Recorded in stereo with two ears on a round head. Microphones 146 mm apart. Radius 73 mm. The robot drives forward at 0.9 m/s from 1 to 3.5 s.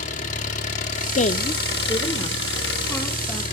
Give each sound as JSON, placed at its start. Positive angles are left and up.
{"t": 0.0, "sound": "an engine running", "side_deg": 45, "distance_m": 1.8}
{"t": 1.1, "sound": "a woman speaking", "side_deg": 45, "distance_m": 0.6}